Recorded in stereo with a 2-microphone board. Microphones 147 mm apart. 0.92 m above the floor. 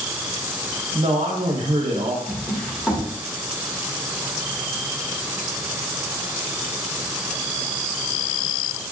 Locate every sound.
0.9 s a man speaking: 40° right (ahead or behind), 1.0 m
2.3 s a drawer: 5° left (ahead or behind), 1.2 m